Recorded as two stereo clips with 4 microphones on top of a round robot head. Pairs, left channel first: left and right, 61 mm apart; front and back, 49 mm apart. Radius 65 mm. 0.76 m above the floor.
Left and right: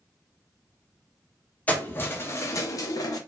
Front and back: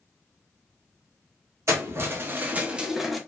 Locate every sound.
1.7 s keys jangling: 155° left, 1.0 m; by 3.2 s 90° left, 0.8 m